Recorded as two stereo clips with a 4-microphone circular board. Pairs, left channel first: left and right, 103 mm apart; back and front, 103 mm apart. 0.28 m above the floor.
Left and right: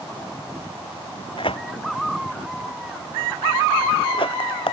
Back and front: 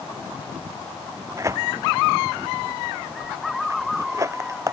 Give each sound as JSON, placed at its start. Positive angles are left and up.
{"t": 1.4, "sound": "tearing paper", "azimuth_deg": 60}